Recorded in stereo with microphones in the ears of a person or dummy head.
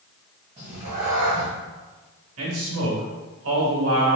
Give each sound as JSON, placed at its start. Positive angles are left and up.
{"t": 0.6, "sound": "a cat meowing", "side_deg": -25, "distance_m": 1.6}
{"t": 2.4, "sound": "a man speaking", "side_deg": -85, "distance_m": 1.7}